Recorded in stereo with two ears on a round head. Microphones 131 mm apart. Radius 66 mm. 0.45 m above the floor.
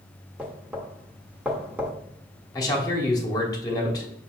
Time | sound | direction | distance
0.4 | knocking | 10° right (ahead or behind) | 0.7 m
2.5 | a man speaking | 25° left (ahead or behind) | 1.1 m